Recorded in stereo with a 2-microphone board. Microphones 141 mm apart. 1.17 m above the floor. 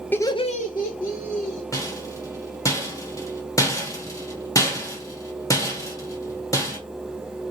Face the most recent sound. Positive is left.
turn(degrees=25)  # may be behind; listen again after turning